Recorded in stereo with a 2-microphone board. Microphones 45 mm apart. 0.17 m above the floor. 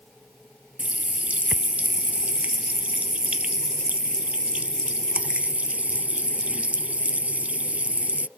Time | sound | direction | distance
0.8 | a running tap | 30° right (ahead or behind) | ?